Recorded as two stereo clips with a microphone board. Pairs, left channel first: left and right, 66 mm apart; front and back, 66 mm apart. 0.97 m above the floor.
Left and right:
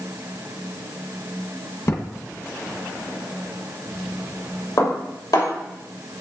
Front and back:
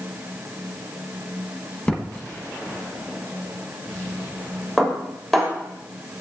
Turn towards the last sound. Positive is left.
turn(degrees=85)